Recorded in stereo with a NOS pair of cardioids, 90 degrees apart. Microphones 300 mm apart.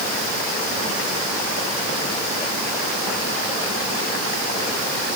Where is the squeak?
No squeak in this recording.